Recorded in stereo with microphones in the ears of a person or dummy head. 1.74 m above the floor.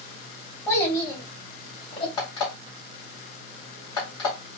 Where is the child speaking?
15° left (ahead or behind), 3 m; by 2.1 s 25° left (ahead or behind), 3 m.